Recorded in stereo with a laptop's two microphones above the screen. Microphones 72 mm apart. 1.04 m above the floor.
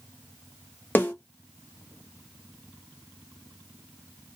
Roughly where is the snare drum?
Left.